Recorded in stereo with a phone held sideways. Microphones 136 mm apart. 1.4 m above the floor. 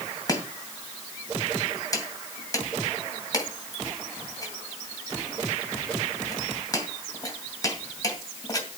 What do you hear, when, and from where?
0.3 s chopping: 25° left (ahead or behind), 2 m